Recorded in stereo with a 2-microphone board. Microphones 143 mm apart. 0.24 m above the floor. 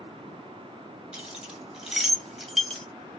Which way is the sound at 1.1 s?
5° right (ahead or behind).